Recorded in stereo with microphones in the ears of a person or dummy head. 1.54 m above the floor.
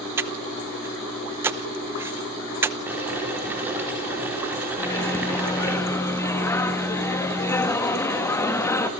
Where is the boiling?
10° right (ahead or behind), 5 m.